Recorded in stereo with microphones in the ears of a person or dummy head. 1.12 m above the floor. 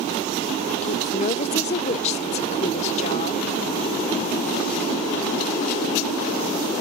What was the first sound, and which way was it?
A woman speaking, 45° left (ahead or behind).